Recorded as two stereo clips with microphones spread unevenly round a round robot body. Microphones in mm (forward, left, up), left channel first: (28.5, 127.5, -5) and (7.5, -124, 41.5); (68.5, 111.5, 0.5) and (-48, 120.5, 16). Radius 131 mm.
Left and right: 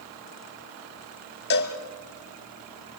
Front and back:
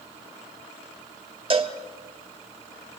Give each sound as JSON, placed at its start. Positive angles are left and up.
{"t": 1.5, "sound": "a cowbell", "azimuth_deg": 135, "distance_m": 1.7}